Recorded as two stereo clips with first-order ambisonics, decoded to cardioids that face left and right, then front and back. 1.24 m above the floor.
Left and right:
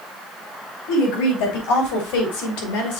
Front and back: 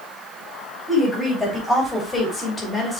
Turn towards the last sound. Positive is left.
turn(degrees=75)